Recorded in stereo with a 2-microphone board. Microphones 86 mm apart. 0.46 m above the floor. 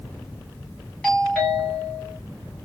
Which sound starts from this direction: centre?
A doorbell, at 1.0 s.